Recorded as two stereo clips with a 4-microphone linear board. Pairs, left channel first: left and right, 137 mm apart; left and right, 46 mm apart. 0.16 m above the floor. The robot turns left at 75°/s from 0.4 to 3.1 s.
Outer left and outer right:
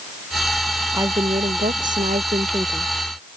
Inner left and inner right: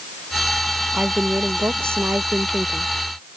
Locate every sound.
0.9 s a woman speaking: 25° right; by 2.9 s 170° right